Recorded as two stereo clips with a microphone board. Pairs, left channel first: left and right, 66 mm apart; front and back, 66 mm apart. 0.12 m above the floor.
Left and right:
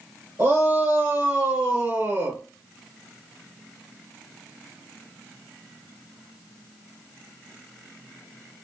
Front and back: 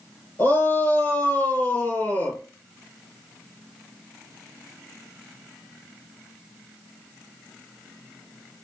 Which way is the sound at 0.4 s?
45° right.